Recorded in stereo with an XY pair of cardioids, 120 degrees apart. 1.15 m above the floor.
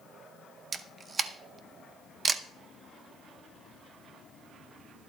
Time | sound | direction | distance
0.7 | a camera shutter | 35° right | 0.7 m